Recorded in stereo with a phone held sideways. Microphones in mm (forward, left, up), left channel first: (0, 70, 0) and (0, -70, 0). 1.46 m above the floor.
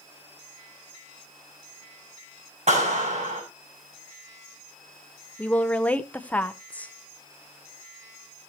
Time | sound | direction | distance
2.7 | a clap | 55° right (ahead or behind) | 6 m
5.4 | a woman speaking | 10° left (ahead or behind) | 0.9 m